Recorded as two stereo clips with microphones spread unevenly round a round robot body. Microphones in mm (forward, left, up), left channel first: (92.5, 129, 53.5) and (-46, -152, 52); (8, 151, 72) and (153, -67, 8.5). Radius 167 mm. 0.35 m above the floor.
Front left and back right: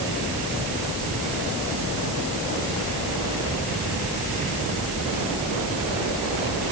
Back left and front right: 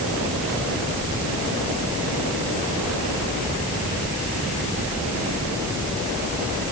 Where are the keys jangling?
I don't hear keys jangling.